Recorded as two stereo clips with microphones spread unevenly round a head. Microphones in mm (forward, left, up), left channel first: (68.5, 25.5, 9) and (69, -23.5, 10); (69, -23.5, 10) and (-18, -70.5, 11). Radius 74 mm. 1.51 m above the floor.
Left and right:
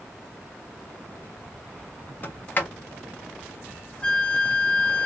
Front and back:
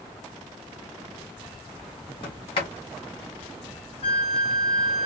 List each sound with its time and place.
2.2 s a sliding door: 50° left, 1.2 m
4.0 s a flute: 30° left, 1.2 m